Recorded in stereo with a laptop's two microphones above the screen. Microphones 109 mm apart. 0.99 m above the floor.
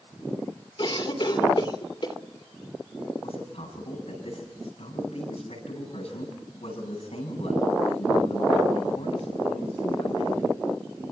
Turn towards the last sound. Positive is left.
turn(degrees=70)  # may be behind; listen again after turning